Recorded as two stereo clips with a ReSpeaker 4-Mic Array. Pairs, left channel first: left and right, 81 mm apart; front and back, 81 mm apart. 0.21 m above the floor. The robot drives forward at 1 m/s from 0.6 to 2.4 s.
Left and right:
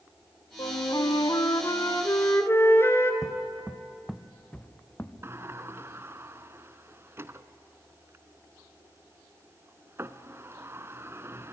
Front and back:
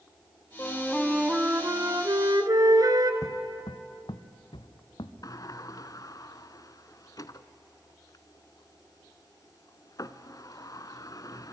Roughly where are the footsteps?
Ahead right.